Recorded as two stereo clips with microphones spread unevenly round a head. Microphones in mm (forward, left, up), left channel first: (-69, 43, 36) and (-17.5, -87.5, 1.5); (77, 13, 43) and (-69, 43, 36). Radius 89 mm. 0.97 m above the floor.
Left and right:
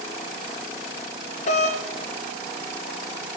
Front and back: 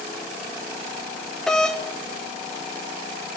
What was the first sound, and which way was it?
A doorbell, 75° left.